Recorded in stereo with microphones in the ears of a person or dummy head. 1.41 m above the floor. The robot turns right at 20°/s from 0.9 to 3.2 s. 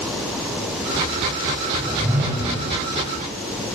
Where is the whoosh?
Centre (ahead or behind), 1.9 m; by 2.7 s 20° right (ahead or behind), 1.9 m.